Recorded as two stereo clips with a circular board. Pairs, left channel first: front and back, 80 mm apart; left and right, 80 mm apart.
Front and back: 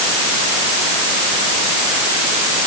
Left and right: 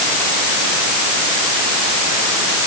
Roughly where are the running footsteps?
I don't hear running footsteps.